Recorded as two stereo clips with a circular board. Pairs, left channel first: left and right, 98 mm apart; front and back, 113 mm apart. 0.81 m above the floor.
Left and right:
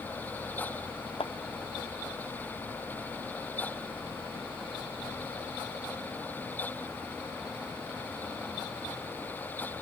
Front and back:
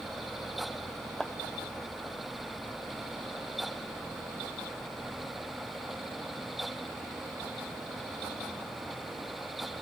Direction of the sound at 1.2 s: 85° left.